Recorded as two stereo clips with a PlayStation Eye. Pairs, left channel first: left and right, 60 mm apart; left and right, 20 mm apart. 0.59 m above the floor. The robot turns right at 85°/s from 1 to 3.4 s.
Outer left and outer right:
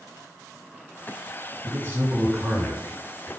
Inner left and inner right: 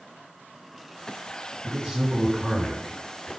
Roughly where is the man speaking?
Ahead right.